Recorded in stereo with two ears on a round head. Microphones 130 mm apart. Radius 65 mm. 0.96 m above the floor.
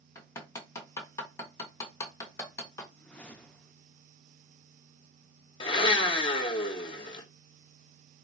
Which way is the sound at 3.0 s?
10° left (ahead or behind).